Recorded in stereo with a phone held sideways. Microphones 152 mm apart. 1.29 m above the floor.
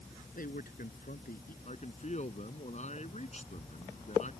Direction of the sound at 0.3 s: 60° left (ahead or behind).